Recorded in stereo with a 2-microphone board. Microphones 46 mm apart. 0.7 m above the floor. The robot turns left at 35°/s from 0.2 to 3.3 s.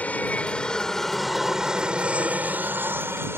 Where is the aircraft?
40° left; by 3.4 s 70° right.